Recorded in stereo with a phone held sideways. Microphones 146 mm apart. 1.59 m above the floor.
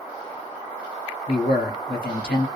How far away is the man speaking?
About 1.3 m.